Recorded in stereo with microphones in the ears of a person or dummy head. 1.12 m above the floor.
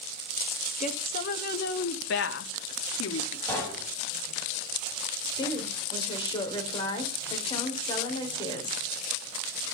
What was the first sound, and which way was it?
A woman speaking, 45° left (ahead or behind).